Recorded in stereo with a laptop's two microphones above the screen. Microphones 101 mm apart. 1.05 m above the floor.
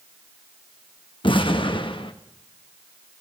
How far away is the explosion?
About 1.0 m.